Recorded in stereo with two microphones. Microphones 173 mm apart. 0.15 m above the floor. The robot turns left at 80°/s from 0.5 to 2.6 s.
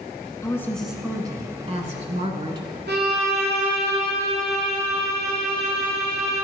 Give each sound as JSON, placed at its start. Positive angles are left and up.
{"t": 0.4, "sound": "a woman speaking", "azimuth_deg": 30, "distance_m": 1.3}
{"t": 2.9, "sound": "a violin", "side_deg": -75, "distance_m": 2.5}